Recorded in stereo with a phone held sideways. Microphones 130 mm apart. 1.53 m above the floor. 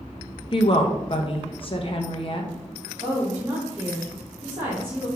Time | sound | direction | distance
0.5 | a woman speaking | 45° left (ahead or behind) | 0.8 m
3.0 | a woman speaking | 40° right (ahead or behind) | 1.8 m